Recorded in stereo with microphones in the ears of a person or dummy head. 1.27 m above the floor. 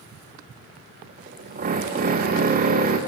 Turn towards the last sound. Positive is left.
turn(degrees=-40)  # may be behind; listen again after turning